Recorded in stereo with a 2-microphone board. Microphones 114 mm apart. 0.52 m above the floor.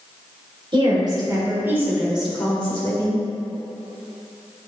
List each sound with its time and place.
0.7 s a woman speaking: 45° right (ahead or behind), 2.5 m; by 3.2 s 25° left (ahead or behind), 2.5 m